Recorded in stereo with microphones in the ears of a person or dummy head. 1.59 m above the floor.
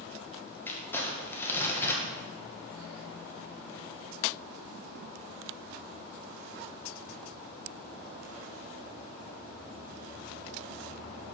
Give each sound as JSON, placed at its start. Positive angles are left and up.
{"t": 0.7, "sound": "crumpling", "side_deg": 15, "distance_m": 1.6}